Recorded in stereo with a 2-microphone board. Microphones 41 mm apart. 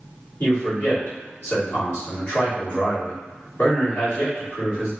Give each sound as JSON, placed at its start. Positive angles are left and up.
{"t": 0.4, "sound": "a man speaking", "side_deg": 40, "distance_m": 1.6}